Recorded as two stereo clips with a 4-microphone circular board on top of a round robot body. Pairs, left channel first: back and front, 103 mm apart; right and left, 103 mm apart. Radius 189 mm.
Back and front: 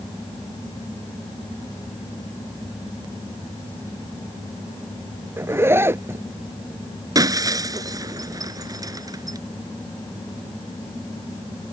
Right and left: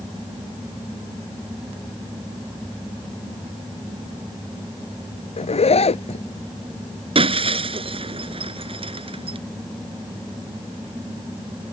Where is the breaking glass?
55° left.